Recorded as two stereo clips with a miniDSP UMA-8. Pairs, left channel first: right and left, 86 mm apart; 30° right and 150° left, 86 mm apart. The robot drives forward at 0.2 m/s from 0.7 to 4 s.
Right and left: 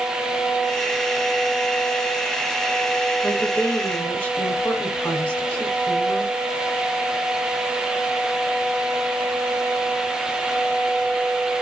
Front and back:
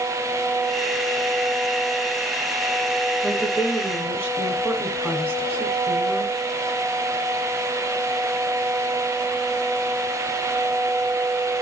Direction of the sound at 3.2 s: 150° right.